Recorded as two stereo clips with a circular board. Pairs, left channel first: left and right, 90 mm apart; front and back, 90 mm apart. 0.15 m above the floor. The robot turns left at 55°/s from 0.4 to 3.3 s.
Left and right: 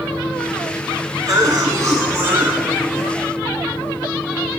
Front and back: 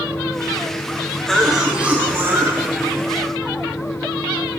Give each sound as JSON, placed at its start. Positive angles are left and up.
{"t": 1.3, "sound": "a cough", "azimuth_deg": -80, "distance_m": 1.4}